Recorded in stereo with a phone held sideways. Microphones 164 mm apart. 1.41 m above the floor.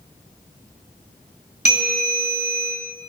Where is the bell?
75° right (ahead or behind), 3.5 m.